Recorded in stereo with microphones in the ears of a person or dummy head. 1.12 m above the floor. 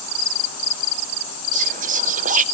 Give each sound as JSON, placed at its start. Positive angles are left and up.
{"t": 1.5, "sound": "whispering", "side_deg": -35, "distance_m": 0.6}